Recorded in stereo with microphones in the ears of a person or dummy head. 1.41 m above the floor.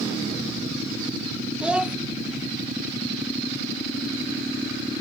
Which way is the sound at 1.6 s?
5° right (ahead or behind).